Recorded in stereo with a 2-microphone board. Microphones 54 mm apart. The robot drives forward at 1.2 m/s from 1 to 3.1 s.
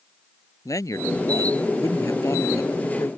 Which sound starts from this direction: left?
A man speaking, at 0.7 s.